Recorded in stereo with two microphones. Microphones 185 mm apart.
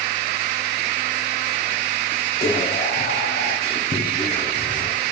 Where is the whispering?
50° left (ahead or behind), 0.6 m.